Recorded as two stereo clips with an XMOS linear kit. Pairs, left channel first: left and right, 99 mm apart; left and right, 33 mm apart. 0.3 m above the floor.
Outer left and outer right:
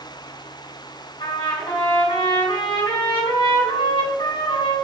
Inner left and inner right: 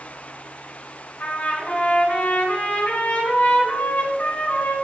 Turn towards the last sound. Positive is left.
turn(degrees=60)  # may be behind; listen again after turning